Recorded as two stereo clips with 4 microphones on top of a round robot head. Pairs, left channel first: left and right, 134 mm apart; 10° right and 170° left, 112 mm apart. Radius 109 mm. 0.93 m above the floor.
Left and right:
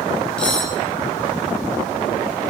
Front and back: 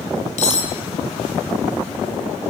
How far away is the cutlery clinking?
About 3 m.